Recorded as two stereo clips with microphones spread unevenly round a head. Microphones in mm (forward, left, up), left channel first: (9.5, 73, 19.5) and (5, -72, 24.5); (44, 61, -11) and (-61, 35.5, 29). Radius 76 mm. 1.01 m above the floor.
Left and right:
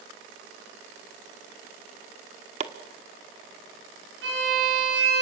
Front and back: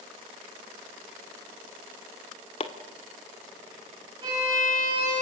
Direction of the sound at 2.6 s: 45° right.